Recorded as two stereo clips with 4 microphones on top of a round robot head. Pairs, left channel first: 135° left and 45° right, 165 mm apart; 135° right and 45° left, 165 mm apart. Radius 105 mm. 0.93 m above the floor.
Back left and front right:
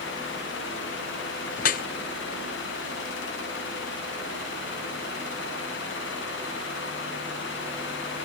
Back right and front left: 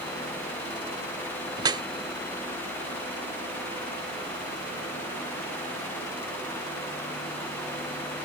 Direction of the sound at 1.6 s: 110° left.